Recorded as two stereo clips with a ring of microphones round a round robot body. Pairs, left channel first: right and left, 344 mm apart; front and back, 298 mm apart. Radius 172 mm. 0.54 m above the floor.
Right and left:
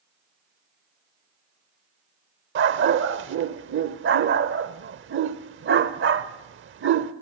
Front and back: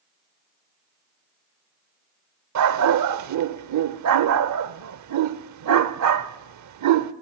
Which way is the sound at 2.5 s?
150° left.